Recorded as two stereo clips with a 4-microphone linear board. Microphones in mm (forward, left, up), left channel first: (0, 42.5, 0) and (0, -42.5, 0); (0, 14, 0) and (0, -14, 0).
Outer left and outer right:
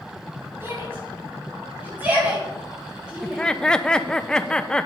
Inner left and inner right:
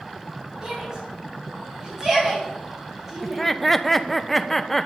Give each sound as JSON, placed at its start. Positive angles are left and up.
{"t": 0.6, "sound": "a shout", "side_deg": -30, "distance_m": 7.0}
{"t": 3.2, "sound": "laughter", "side_deg": 10, "distance_m": 0.9}